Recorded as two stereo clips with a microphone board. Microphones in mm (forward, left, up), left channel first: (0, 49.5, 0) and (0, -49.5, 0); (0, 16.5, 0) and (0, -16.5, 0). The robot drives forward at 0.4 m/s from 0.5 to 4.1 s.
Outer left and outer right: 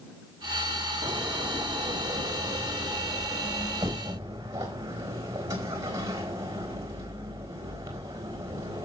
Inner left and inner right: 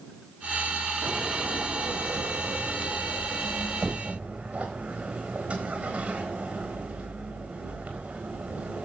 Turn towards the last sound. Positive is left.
turn(degrees=-35)  # may be behind; listen again after turning